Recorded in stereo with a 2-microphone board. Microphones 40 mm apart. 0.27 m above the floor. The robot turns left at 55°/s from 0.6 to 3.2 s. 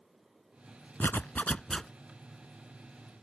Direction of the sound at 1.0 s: 60° left.